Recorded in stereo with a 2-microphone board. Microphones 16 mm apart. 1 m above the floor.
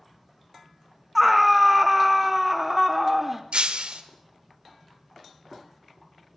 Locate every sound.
1.1 s a scream: 10° right (ahead or behind), 1.7 m; by 3.4 s 15° right (ahead or behind), 3.5 m
3.5 s breaking glass: 80° right, 2 m